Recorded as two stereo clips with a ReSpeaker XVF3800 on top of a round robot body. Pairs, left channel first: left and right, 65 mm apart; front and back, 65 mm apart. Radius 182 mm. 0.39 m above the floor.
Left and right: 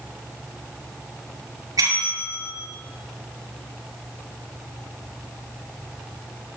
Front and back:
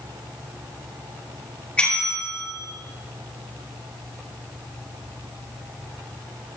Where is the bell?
75° right, 6.5 m.